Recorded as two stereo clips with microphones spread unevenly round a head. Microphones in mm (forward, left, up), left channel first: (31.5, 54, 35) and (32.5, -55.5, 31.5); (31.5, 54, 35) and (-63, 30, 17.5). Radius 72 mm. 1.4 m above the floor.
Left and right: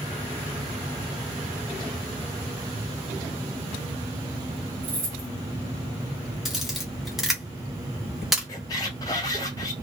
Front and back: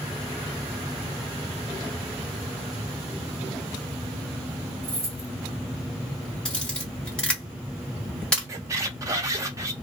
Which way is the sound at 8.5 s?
140° left.